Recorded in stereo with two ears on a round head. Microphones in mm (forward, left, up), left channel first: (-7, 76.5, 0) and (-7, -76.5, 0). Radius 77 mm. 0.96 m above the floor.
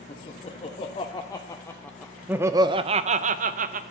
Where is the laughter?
35° left (ahead or behind), 1.6 m; by 3.8 s 50° right (ahead or behind), 1.0 m.